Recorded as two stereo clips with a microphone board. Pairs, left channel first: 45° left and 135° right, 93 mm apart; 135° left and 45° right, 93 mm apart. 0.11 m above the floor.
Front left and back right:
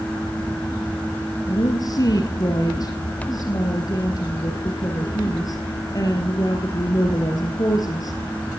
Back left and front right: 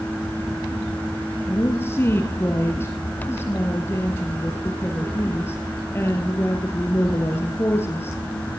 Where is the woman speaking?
80° left, 2 m.